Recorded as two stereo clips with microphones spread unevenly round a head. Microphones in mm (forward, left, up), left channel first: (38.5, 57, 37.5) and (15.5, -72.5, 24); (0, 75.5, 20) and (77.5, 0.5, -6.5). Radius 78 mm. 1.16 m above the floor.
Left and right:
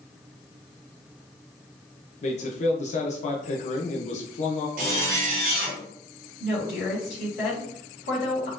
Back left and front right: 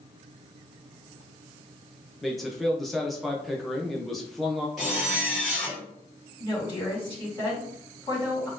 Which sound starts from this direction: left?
A woman speaking, at 6.4 s.